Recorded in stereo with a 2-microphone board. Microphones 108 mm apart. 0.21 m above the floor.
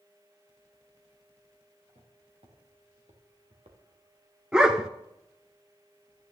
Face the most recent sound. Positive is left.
turn(degrees=-5)  # may be behind; listen again after turning